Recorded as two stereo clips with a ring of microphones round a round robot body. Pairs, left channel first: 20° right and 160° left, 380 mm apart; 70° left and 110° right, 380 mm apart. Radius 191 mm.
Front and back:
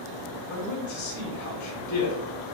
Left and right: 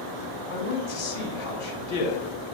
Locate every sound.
0.5 s a man speaking: 20° left, 3 m